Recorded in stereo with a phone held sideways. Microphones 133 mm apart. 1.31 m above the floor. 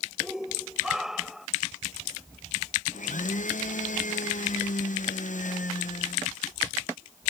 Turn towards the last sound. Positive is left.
turn(degrees=70)  # may be behind; listen again after turning